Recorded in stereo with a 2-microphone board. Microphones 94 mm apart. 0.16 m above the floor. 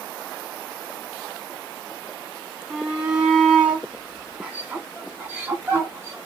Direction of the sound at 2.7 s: 5° right (ahead or behind).